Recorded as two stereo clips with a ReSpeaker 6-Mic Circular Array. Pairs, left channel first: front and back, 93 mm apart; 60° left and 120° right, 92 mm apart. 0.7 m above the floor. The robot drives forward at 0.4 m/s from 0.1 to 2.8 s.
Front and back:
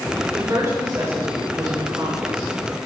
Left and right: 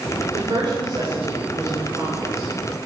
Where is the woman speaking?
130° right, 3 m; by 2.5 s 145° right, 3.5 m.